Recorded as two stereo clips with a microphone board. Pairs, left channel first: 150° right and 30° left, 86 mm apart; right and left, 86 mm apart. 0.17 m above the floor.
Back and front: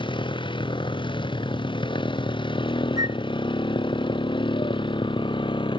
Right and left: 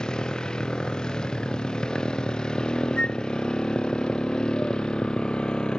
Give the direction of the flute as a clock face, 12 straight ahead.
12 o'clock.